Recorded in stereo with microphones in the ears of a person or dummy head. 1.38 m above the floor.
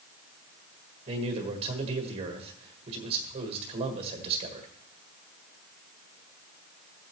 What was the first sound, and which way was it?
A man speaking, 35° right (ahead or behind).